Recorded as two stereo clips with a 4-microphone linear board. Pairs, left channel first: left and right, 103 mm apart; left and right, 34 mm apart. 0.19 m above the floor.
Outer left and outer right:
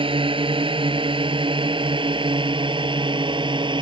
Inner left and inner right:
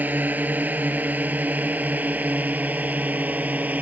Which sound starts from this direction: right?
A drone, at 0.0 s.